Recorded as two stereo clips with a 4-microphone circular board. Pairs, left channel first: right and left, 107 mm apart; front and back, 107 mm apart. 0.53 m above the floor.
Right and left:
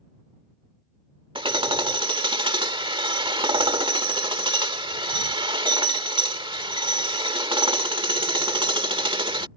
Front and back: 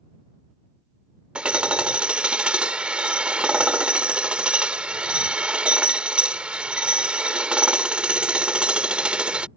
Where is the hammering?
105° left.